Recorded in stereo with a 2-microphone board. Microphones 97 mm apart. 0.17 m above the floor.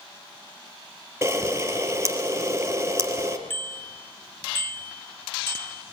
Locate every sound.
1.2 s a camera shutter: 25° right (ahead or behind), 3.5 m
3.5 s a bicycle bell: 25° left (ahead or behind), 2.5 m